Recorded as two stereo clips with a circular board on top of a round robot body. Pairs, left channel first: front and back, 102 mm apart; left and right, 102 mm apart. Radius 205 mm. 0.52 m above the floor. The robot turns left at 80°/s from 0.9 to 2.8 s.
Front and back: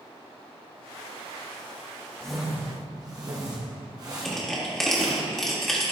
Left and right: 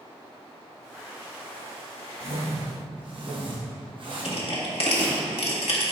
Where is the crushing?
85° left, 1.9 m.